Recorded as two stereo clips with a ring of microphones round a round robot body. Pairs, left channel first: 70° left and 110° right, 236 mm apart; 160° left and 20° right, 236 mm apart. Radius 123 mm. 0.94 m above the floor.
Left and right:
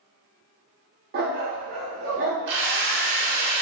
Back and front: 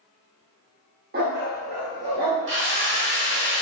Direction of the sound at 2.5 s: 60° right.